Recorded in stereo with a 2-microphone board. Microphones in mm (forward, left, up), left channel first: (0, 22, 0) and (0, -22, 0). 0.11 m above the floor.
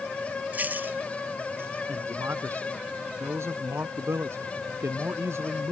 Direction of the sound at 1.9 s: 70° right (ahead or behind).